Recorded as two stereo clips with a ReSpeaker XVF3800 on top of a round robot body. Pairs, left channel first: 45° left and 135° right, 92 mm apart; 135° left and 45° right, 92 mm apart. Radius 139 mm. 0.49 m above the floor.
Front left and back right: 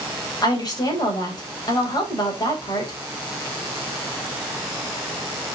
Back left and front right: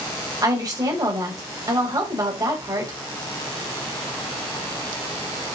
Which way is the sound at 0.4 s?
Straight ahead.